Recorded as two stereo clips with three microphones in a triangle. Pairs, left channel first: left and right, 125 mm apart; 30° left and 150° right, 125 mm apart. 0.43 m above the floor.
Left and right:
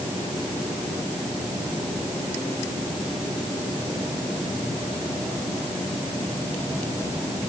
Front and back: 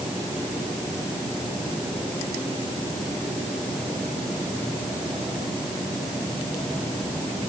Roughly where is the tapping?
No tapping in this recording.